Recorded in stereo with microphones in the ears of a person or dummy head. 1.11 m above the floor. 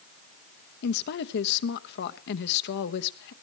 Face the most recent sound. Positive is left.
turn(degrees=60)  # may be behind; listen again after turning